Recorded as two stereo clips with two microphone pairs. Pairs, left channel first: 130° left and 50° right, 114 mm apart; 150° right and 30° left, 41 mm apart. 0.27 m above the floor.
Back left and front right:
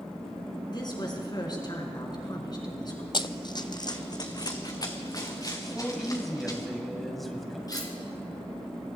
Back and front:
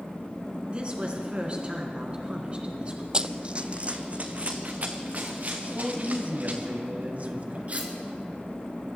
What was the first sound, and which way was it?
A woman speaking, 85° left.